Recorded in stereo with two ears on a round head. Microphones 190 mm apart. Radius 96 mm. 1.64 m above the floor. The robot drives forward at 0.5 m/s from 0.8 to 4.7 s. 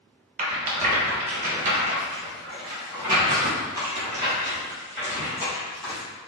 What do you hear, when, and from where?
0.4 s a rattle: 35° right (ahead or behind), 0.8 m; by 6.0 s 15° right (ahead or behind), 2.0 m